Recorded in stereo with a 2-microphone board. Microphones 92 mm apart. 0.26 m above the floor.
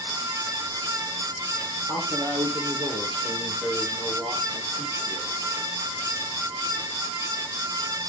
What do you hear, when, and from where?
1.9 s a man speaking: 60° right (ahead or behind), 6.5 m; by 5.3 s 75° right (ahead or behind), 7 m